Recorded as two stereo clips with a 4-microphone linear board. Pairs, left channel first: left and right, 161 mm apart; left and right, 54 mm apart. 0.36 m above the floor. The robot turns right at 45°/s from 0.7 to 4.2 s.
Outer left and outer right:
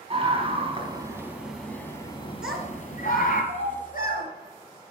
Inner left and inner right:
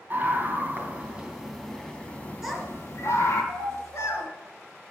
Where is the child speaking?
5° right (ahead or behind), 2.5 m; by 4.3 s 75° left (ahead or behind), 2.5 m.